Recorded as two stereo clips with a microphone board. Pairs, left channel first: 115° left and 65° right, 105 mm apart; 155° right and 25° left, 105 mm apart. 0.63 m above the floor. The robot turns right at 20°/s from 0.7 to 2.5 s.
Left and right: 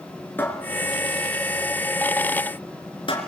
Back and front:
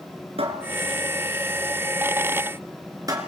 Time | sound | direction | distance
0.4 | a cupboard door | 40° left | 4 m